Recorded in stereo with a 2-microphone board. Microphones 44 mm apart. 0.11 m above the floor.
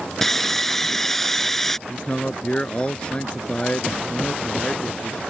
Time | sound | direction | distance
0.2 | sawing | 10° left (ahead or behind) | ?
1.9 | a man speaking | 25° left (ahead or behind) | ?